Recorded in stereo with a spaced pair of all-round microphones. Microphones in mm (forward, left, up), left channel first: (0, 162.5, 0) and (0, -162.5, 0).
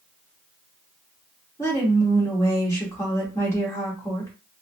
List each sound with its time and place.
1.6 s a woman speaking: 10° left (ahead or behind), 2 m